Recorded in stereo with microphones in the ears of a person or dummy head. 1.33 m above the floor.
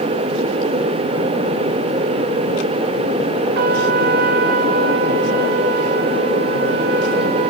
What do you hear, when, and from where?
3.5 s a trumpet: 55° right (ahead or behind), 1.5 m